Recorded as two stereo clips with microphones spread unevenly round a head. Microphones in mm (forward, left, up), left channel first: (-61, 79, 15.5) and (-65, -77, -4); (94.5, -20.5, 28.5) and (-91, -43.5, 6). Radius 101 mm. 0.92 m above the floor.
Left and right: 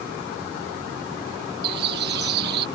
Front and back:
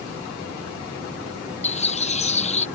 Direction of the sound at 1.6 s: 50° right.